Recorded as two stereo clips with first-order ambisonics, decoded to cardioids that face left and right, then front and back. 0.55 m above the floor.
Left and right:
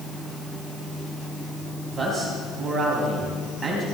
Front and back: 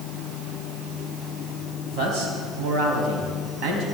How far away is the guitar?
I don't hear a guitar.